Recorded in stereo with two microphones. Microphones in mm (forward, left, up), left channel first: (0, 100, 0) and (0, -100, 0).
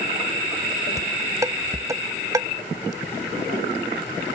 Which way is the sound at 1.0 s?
15° right (ahead or behind).